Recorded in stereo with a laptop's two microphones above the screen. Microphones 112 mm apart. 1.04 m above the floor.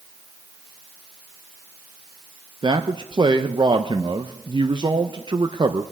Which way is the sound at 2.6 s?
45° right (ahead or behind).